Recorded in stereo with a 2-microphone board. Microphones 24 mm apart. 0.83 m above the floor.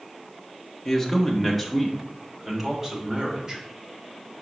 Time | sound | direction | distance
0.8 | a man speaking | 10° left (ahead or behind) | 1.5 m